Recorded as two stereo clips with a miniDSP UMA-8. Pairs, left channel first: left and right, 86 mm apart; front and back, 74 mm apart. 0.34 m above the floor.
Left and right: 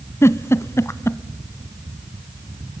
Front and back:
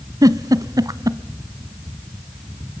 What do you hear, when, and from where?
0.2 s a giggle: 145° left, 0.7 m